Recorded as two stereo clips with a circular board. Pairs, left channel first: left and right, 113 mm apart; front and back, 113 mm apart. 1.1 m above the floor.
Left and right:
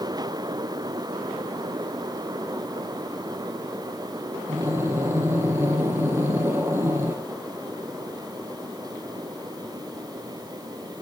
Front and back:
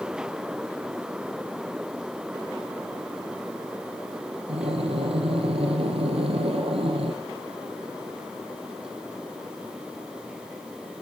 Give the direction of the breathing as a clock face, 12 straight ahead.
5 o'clock.